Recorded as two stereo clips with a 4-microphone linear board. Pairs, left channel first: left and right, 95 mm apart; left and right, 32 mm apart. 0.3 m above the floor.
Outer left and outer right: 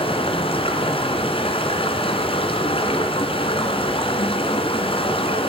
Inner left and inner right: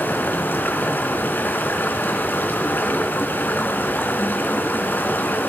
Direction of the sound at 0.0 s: 75° left (ahead or behind).